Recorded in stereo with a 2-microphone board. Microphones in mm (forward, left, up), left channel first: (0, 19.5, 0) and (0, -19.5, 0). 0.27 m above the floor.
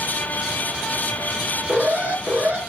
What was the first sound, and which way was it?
An alarm, 40° right (ahead or behind).